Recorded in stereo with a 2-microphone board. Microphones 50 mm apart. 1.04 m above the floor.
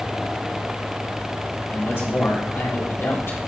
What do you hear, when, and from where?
1.7 s a man speaking: 55° left (ahead or behind), 2.5 m